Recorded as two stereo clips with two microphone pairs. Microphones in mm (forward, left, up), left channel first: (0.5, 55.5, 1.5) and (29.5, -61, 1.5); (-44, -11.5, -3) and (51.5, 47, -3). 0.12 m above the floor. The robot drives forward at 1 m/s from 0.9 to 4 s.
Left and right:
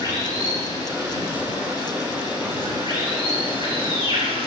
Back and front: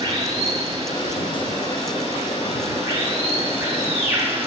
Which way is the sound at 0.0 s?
25° right.